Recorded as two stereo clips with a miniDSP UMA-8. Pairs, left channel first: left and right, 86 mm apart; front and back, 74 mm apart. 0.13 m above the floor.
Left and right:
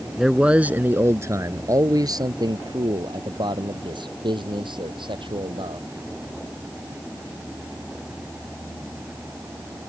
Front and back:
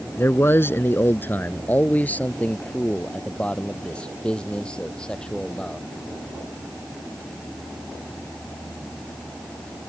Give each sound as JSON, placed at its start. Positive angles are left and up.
{"t": 0.2, "sound": "a man speaking", "azimuth_deg": -5}